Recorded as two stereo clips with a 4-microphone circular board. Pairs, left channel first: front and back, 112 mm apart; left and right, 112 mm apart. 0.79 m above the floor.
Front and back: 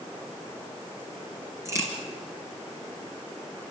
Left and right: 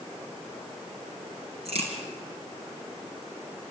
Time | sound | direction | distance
1.6 | a crack | 115° right | 5 m